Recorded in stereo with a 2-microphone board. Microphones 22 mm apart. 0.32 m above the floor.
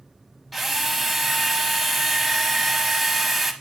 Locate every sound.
0.5 s a drill: centre (ahead or behind), 0.9 m